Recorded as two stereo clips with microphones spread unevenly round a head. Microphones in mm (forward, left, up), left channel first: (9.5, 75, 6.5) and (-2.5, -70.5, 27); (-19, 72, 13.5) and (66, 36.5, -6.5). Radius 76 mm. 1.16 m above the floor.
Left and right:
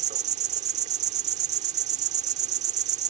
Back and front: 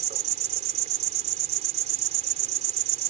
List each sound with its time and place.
0.0 s an insect: 50° right